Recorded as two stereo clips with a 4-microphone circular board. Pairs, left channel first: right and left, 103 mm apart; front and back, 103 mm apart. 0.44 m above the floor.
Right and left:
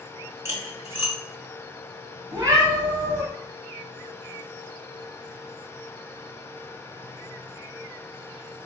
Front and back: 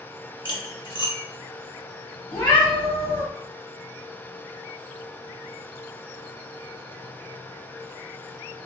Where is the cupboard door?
I don't hear a cupboard door.